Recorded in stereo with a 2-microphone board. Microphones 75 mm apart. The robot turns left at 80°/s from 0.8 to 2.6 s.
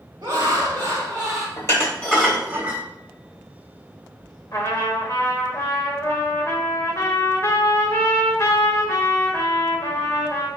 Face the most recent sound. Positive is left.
turn(degrees=40)  # may be behind; listen again after turning